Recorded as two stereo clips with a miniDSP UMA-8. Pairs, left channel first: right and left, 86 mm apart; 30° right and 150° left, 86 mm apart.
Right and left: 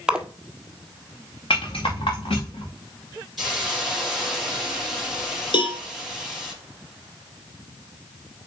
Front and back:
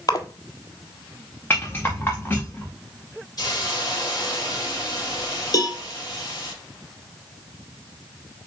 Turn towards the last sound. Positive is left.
turn(degrees=-70)